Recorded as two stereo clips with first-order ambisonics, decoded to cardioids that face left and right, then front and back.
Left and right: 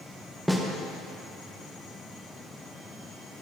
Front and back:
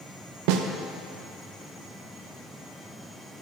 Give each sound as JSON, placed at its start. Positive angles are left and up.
{"t": 0.5, "sound": "a snare drum", "azimuth_deg": -175, "distance_m": 0.8}